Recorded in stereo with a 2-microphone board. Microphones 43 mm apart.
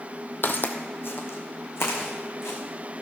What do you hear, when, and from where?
0.4 s footsteps: 50° left (ahead or behind), 1.0 m; by 2.6 s 75° left (ahead or behind), 3 m